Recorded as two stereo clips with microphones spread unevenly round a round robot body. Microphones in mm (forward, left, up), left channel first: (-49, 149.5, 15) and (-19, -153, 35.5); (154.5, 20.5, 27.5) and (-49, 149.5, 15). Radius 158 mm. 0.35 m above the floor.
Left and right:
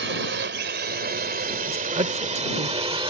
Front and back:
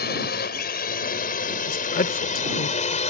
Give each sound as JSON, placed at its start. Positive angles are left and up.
{"t": 0.0, "sound": "a drone", "azimuth_deg": -55}
{"t": 1.7, "sound": "a woman speaking", "azimuth_deg": -25}